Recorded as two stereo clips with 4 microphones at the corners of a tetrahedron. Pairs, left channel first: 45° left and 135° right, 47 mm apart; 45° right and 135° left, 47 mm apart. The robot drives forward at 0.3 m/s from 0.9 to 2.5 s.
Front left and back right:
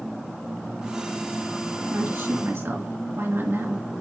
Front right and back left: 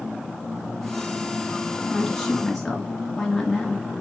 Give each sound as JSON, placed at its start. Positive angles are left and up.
{"t": 1.8, "sound": "a woman speaking", "azimuth_deg": -130, "distance_m": 2.5}